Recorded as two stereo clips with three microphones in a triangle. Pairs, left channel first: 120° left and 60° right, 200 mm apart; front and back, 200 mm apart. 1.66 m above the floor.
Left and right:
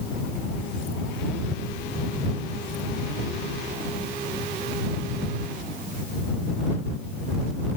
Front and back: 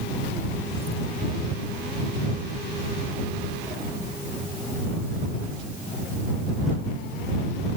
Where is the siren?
No siren in this recording.